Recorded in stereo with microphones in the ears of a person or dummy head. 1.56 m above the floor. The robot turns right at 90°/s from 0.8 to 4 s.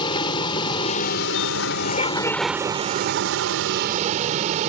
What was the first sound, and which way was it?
A vehicle, 30° left.